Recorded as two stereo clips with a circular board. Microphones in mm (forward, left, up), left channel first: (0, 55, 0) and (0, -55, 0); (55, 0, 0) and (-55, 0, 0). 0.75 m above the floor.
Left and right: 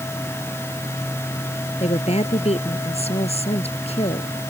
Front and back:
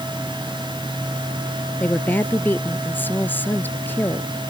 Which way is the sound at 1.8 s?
75° left.